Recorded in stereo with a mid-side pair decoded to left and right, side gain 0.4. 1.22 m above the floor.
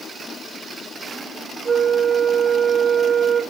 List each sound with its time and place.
1.6 s a flute: 40° right, 1.1 m